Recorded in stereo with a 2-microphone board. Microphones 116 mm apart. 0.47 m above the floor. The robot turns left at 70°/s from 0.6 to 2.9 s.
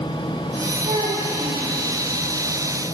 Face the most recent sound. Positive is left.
turn(degrees=125)